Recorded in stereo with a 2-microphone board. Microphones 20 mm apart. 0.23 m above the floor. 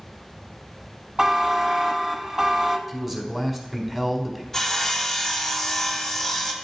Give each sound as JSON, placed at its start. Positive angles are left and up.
{"t": 1.2, "sound": "a buzzer", "side_deg": -35, "distance_m": 0.6}
{"t": 2.9, "sound": "a man speaking", "side_deg": -15, "distance_m": 1.2}
{"t": 4.5, "sound": "sawing", "side_deg": 15, "distance_m": 1.1}